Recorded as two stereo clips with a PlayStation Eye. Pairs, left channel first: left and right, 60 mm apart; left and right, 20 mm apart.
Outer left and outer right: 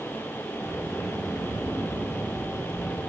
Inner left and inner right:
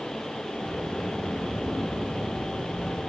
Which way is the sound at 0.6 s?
80° left.